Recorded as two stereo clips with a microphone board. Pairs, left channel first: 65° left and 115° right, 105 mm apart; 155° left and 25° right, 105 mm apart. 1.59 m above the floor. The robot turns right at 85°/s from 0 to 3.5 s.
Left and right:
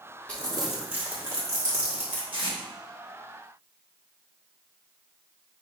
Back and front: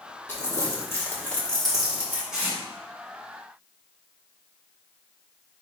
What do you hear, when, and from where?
0.3 s crumpling: 130° left, 1.1 m; by 2.2 s 70° right, 1.1 m
2.3 s tape being pulled: 105° right, 1.2 m; by 2.6 s 85° right, 1.2 m